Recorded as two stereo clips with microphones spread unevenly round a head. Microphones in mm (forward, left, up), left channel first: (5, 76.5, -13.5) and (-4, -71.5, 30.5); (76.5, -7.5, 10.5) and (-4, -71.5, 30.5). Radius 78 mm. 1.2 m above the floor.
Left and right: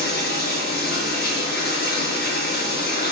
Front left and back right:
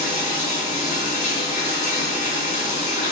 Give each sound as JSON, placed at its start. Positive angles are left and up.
{"t": 0.0, "sound": "running water", "azimuth_deg": 55, "distance_m": 3.0}